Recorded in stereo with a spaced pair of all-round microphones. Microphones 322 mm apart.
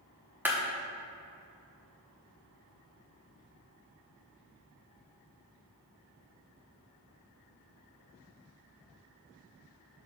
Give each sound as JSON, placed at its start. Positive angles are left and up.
{"t": 0.5, "sound": "a clap", "side_deg": -5, "distance_m": 1.3}